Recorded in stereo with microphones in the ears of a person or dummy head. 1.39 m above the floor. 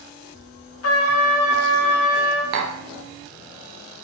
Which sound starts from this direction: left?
A trumpet, at 0.8 s.